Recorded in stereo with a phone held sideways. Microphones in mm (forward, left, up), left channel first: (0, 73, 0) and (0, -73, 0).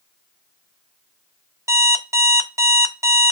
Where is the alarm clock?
20° right (ahead or behind), 0.6 m.